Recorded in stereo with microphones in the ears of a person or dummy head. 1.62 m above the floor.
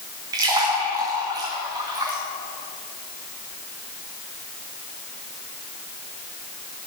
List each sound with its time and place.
0.3 s a splash: 20° right (ahead or behind), 1.3 m